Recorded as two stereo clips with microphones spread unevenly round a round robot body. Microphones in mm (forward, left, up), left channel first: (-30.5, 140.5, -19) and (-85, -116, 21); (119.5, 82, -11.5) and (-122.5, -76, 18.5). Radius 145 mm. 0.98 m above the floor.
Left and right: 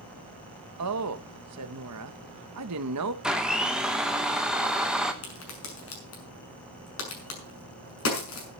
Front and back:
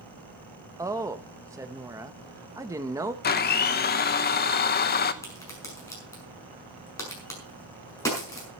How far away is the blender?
About 1.0 m.